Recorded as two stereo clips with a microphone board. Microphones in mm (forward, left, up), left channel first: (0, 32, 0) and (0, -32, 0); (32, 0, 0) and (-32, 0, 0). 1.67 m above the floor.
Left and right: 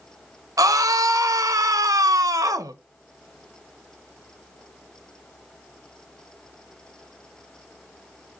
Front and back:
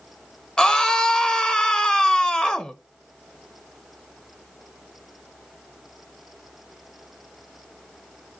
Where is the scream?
75° right, 1.2 m.